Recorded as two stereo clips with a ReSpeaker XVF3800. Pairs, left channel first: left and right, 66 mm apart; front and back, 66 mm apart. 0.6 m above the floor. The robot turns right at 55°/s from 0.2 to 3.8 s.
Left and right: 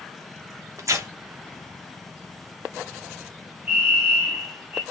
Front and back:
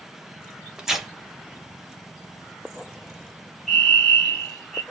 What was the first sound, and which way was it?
Tearing paper, 105° right.